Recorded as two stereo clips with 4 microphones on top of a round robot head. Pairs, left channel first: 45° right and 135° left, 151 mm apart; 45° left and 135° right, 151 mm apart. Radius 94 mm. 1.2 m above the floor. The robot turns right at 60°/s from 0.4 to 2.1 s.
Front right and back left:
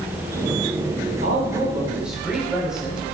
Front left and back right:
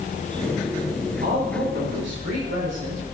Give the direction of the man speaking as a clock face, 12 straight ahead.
6 o'clock.